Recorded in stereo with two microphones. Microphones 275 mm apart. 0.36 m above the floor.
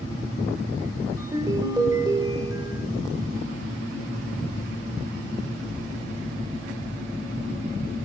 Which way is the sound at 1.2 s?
15° right (ahead or behind).